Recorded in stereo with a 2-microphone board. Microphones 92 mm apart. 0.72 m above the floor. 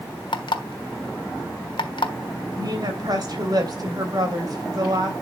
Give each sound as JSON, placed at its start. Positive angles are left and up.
{"t": 0.3, "sound": "an alarm clock", "side_deg": 65, "distance_m": 1.2}
{"t": 2.6, "sound": "a woman speaking", "side_deg": -50, "distance_m": 3.0}